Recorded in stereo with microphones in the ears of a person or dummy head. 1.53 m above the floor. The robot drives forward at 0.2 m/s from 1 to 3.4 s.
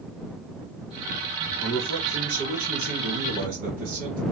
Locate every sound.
1.6 s a man speaking: 60° right (ahead or behind), 1.9 m; by 4.2 s 50° right (ahead or behind), 2 m